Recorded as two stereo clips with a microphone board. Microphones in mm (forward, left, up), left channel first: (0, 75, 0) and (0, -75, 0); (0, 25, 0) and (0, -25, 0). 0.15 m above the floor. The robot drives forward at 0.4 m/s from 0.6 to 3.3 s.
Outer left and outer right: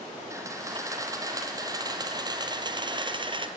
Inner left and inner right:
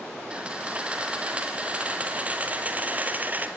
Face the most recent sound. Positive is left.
turn(degrees=-35)  # may be behind; listen again after turning